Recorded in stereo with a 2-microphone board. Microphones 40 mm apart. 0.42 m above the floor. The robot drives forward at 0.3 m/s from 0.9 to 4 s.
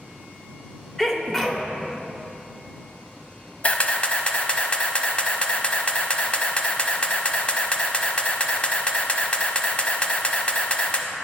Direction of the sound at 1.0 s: 10° left (ahead or behind).